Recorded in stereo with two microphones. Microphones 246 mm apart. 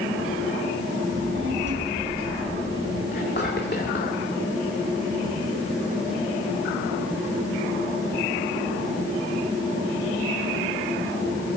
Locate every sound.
1.1 s a child speaking: 55° right (ahead or behind), 4 m; by 3.0 s 50° right (ahead or behind), 5 m
3.1 s whispering: 45° left (ahead or behind), 1.7 m